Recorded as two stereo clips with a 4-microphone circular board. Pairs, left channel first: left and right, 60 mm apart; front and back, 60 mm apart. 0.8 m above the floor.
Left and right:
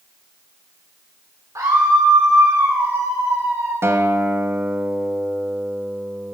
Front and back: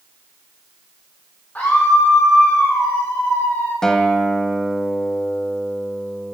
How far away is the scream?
About 2.5 m.